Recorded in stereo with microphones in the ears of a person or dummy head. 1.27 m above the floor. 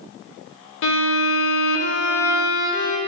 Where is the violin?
60° left (ahead or behind), 0.7 m.